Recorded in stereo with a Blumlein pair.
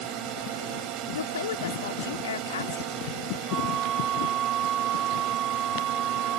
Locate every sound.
0.0 s a drone: 40° right
1.1 s a woman speaking: 65° left
3.5 s a flute: 30° right